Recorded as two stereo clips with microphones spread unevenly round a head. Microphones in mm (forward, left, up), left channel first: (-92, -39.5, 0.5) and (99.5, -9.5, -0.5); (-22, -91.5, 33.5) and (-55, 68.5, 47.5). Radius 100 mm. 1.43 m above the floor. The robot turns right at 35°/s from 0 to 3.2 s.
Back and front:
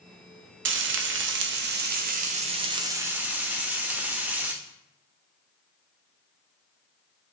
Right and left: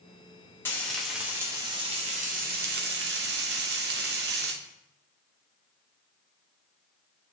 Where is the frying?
Straight ahead, 0.6 m; by 4.5 s 90° left, 0.6 m.